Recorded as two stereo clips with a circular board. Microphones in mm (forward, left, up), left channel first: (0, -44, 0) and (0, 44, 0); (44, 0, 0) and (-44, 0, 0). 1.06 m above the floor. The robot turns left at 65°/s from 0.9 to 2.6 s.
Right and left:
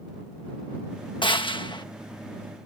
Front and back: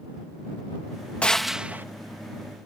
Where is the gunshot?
75° right; by 1.9 s 115° right.